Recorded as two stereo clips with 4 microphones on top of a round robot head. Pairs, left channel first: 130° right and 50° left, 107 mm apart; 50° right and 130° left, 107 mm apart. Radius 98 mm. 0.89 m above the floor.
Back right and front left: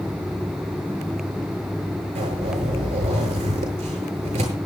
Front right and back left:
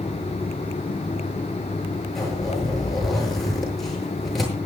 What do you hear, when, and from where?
2.1 s a zipper: 40° left, 7.5 m